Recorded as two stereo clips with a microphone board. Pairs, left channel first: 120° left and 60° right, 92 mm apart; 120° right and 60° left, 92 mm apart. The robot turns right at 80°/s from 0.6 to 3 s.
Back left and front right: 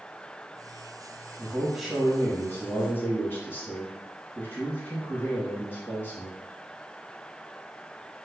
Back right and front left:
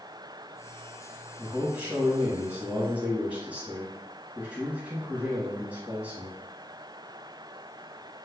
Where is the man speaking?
10° right, 1.2 m; by 6.4 s 115° left, 1.2 m.